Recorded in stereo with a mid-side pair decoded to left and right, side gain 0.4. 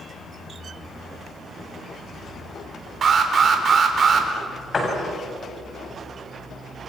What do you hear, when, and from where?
3.0 s an alarm: 50° right, 4 m
4.7 s a door slam: 40° left, 8 m